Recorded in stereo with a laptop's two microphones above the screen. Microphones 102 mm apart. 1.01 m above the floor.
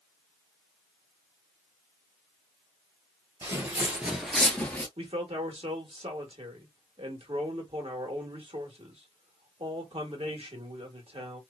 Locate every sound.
3.4 s footsteps: 30° right (ahead or behind), 1.3 m; by 4.9 s 20° left (ahead or behind), 1.1 m
5.0 s a man speaking: 70° right (ahead or behind), 1.2 m